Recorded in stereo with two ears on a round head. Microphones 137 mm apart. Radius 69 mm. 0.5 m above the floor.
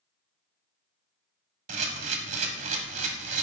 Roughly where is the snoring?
I don't hear snoring.